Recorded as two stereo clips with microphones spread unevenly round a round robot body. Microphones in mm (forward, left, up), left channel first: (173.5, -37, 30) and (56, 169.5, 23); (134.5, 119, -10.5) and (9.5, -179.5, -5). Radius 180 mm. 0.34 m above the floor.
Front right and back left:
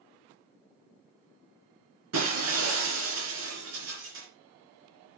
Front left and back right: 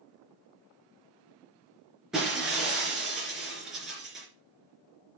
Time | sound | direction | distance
2.1 | breaking glass | 160° left | 3 m